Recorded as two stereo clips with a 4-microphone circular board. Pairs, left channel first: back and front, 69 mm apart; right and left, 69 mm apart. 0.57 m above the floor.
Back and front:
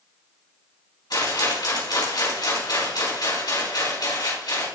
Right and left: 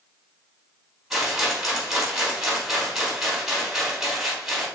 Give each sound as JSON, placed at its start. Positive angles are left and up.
{"t": 1.1, "sound": "a rattle", "azimuth_deg": 175, "distance_m": 4.5}